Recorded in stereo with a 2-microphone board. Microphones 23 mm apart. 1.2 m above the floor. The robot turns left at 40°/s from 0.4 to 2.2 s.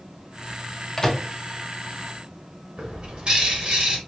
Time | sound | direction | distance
1.0 | a microwave | 25° left (ahead or behind) | 0.6 m
2.8 | a bird | 45° right (ahead or behind) | 1.2 m